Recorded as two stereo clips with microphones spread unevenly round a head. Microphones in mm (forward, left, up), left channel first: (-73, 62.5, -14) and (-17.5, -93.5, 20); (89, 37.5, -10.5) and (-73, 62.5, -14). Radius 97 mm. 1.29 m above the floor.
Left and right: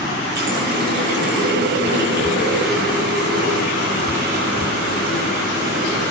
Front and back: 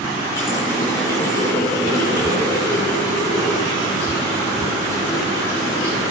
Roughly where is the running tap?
Right.